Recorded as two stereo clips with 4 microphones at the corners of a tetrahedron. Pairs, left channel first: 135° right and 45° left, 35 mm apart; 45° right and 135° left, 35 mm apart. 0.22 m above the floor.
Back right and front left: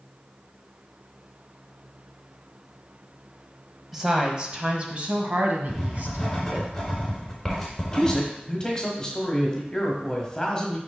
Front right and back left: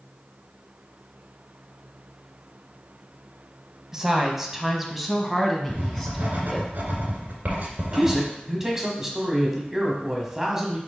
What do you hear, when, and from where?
3.9 s a woman speaking: 105° left, 1.0 m; by 6.7 s 35° left, 1.9 m
5.7 s writing: 140° left, 2 m
7.9 s a man speaking: 170° right, 1.5 m